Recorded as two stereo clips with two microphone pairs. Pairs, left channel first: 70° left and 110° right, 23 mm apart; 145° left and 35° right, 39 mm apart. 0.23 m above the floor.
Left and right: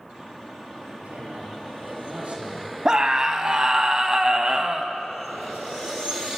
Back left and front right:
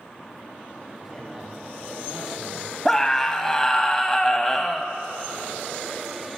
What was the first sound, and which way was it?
A man speaking, 115° right.